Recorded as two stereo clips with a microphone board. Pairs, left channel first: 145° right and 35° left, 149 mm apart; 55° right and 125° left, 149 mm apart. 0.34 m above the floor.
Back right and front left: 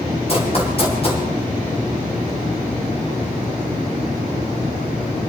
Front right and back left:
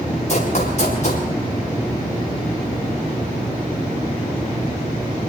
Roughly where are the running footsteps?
Right.